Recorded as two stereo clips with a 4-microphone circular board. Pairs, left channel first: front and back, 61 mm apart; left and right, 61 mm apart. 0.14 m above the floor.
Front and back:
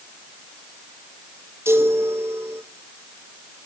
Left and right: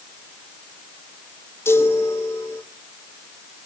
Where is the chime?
135° left, 2.5 m.